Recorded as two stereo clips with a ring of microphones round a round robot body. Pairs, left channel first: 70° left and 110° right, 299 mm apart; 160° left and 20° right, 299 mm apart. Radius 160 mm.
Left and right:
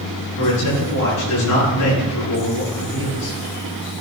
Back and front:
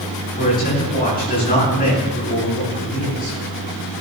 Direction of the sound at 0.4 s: 100° left.